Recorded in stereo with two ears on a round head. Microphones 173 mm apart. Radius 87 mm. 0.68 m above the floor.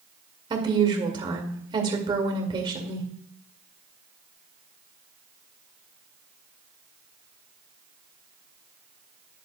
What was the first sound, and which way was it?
A woman speaking, 25° right (ahead or behind).